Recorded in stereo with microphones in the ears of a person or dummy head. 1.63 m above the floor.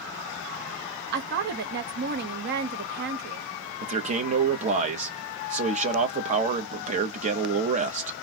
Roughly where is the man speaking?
Right.